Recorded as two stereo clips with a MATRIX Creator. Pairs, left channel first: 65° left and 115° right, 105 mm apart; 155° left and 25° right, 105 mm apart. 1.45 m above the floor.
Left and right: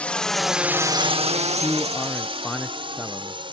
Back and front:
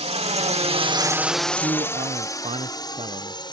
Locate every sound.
0.0 s a drone: 10° right; by 3.5 s 155° right
1.6 s a man speaking: 15° right